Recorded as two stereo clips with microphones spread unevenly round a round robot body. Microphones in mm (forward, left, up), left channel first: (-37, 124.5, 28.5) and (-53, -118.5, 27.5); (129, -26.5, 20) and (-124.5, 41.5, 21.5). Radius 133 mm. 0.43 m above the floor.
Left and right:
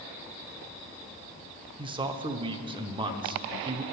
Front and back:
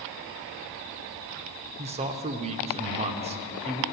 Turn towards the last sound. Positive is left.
turn(degrees=-150)